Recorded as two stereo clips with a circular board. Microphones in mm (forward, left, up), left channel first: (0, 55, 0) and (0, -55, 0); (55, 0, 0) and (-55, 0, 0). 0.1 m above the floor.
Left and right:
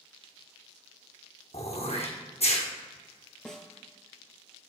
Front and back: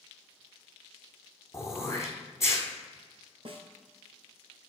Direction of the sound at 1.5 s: 65° left.